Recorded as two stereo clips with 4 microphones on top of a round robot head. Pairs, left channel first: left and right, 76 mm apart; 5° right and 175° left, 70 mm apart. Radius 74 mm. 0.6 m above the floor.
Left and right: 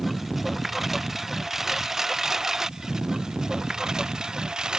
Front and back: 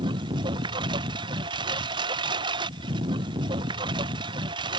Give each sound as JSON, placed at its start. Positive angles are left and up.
{"t": 0.0, "sound": "a lawn mower", "azimuth_deg": 180}